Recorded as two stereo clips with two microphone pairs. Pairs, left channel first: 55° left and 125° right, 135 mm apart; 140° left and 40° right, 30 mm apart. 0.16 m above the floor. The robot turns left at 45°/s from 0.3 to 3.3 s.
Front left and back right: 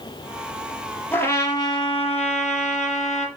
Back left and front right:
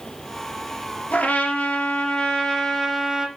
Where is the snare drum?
No snare drum in this recording.